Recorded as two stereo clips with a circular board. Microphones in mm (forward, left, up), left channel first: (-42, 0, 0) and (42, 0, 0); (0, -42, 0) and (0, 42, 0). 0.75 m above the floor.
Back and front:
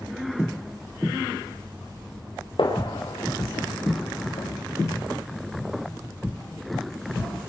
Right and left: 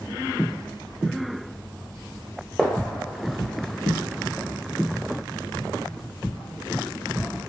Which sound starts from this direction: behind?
A gunshot, at 2.6 s.